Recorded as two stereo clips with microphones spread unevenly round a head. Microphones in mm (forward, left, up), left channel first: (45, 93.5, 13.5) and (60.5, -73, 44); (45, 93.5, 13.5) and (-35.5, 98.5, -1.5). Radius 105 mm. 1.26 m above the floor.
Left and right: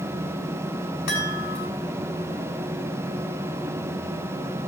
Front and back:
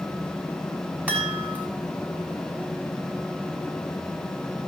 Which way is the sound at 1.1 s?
105° left.